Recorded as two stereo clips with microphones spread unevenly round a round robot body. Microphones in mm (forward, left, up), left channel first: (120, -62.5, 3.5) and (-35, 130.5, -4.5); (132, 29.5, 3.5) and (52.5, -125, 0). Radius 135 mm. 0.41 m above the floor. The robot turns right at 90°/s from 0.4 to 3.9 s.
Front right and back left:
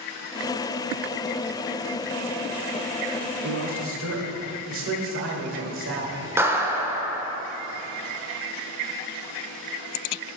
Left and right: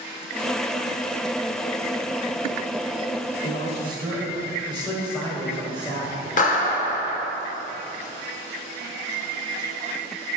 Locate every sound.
3.4 s a man speaking: 100° left, 1.2 m; by 6.2 s 140° left, 1.2 m
6.4 s a clap: 55° left, 0.9 m